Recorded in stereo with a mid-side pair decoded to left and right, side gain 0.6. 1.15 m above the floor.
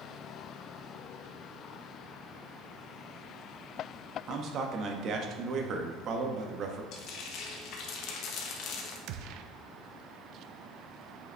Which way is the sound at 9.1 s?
65° right.